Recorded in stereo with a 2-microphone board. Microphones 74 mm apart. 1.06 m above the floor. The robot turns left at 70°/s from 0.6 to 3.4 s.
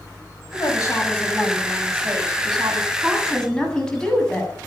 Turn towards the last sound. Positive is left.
turn(degrees=170)